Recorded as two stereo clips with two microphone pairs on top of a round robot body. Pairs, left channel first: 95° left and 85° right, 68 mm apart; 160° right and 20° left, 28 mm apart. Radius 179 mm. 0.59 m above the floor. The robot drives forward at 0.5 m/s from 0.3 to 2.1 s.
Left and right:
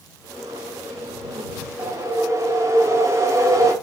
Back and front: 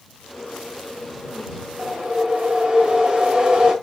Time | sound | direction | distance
1.8 | a whoosh | 35° right | 1.9 m